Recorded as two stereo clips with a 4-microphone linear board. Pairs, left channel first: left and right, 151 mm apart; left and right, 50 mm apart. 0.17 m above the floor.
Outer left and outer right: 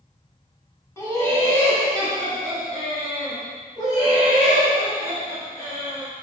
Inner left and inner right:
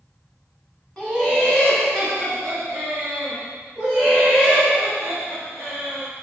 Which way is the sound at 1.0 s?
20° left (ahead or behind).